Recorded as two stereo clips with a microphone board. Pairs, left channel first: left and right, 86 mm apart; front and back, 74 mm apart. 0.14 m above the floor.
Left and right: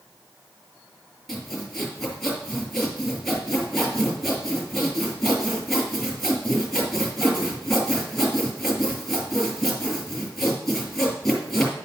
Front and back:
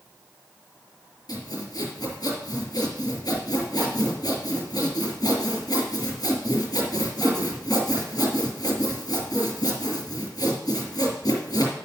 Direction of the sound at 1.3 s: Straight ahead.